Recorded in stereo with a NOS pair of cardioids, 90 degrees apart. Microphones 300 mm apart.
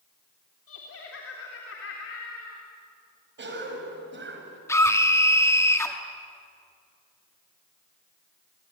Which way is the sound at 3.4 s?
40° right.